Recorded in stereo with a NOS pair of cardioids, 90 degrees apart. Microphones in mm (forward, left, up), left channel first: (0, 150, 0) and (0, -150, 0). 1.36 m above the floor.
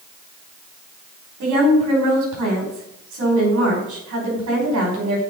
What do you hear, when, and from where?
1.4 s a woman speaking: 65° right, 5 m